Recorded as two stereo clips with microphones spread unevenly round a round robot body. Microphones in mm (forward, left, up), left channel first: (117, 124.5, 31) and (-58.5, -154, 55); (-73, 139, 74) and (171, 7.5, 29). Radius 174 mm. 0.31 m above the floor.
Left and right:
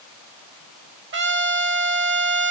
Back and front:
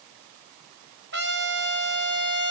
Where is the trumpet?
70° right, 1.6 m.